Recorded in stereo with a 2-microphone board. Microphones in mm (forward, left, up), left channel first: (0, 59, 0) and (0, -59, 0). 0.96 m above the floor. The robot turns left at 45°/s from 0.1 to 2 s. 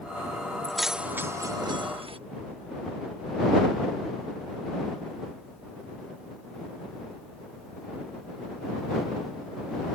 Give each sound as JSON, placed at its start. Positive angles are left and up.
{"t": 0.6, "sound": "keys jangling", "side_deg": 5}